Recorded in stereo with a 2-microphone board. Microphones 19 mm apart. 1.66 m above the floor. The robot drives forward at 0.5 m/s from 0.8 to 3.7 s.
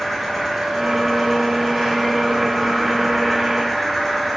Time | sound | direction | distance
0.0 | an insect | 15° left (ahead or behind) | 7.5 m